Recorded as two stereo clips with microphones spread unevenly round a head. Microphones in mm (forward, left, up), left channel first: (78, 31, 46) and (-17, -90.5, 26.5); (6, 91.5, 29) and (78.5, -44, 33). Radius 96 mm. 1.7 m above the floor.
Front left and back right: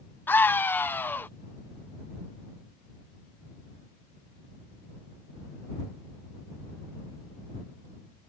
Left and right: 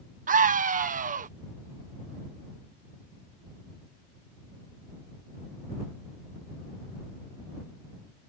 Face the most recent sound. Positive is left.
turn(degrees=-25)